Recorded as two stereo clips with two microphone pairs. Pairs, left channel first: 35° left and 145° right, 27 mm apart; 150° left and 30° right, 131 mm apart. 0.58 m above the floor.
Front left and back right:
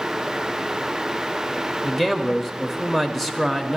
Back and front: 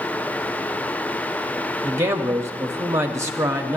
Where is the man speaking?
55° right, 0.6 m.